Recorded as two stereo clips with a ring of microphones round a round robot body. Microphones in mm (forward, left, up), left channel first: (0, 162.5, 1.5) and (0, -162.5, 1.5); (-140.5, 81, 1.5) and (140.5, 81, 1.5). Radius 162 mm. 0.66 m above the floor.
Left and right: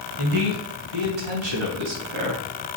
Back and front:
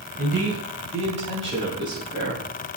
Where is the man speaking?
65° right, 4 m; by 2.8 s 85° right, 3 m.